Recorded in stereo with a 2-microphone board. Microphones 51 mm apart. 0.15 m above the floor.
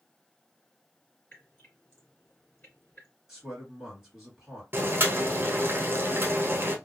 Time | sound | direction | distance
1.3 | dripping | 40° left (ahead or behind) | 2 m
3.3 | a man speaking | centre (ahead or behind) | 2.5 m
4.7 | boiling | 40° right (ahead or behind) | 0.8 m